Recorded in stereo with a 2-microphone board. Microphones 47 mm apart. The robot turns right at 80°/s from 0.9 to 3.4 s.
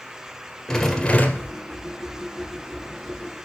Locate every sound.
0.7 s a rattle: 10° left, 1.7 m; by 1.6 s 60° left, 1.7 m